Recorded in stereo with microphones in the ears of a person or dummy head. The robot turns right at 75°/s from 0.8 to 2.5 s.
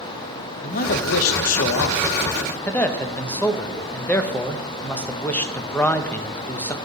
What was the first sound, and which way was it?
A man speaking, 45° left.